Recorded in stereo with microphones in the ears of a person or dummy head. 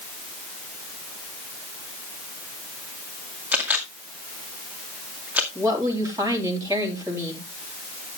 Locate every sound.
3.5 s a camera shutter: 10° right (ahead or behind), 2.0 m
5.5 s a woman speaking: 15° right (ahead or behind), 3.5 m